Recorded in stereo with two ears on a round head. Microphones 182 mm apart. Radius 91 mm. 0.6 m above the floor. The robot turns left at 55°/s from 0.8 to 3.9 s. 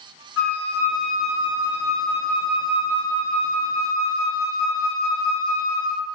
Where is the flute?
65° left, 1.0 m; by 6.0 s 110° right, 1.0 m.